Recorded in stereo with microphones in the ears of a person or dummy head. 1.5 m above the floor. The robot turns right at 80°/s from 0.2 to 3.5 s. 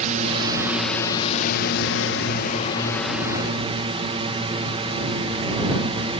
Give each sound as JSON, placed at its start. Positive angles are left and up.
{"t": 0.0, "sound": "a drone", "azimuth_deg": -50}